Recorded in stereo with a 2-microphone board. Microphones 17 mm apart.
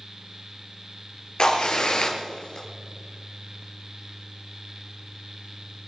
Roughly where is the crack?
Left.